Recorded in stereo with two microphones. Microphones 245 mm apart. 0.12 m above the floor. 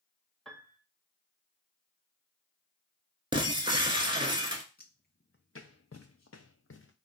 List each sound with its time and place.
0.5 s a piano: centre (ahead or behind), 0.6 m
3.3 s breaking glass: 20° right (ahead or behind), 0.7 m
4.8 s footsteps: 40° left (ahead or behind), 0.8 m; by 6.9 s 55° left (ahead or behind), 0.8 m